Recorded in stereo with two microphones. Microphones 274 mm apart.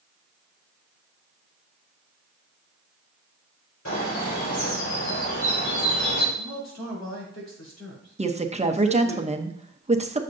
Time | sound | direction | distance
3.9 | a bird | 85° left | 3 m
6.4 | a man speaking | 70° left (ahead or behind) | 3.5 m
8.2 | a woman speaking | 25° right (ahead or behind) | 0.8 m